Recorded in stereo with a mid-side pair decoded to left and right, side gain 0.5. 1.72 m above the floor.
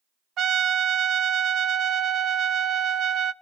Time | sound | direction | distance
0.4 | a trumpet | 55° right | 0.8 m